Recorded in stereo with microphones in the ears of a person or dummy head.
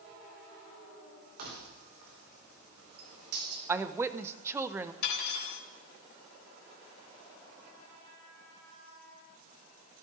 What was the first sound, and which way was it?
Keys jangling, 50° right (ahead or behind).